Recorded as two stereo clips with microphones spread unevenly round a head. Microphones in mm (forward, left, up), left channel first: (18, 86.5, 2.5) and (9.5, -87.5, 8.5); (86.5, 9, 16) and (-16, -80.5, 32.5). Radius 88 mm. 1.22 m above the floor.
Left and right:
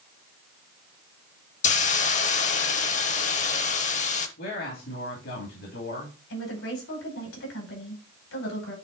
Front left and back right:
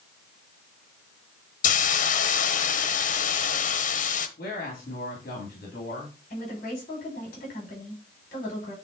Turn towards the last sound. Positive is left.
turn(degrees=85)